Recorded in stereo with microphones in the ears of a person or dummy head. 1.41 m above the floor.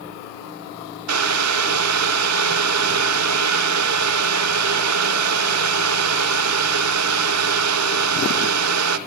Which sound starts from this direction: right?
Boiling, at 1.1 s.